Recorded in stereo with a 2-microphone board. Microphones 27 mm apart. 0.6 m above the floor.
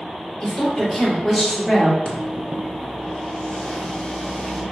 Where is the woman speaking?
20° left (ahead or behind), 1.6 m; by 1.9 s 25° right (ahead or behind), 1.9 m.